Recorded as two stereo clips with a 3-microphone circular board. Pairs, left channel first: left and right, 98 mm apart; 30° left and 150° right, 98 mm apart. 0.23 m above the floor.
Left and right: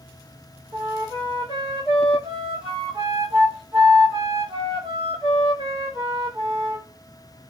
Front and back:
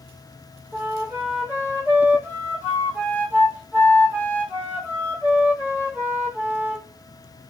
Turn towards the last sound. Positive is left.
turn(degrees=-80)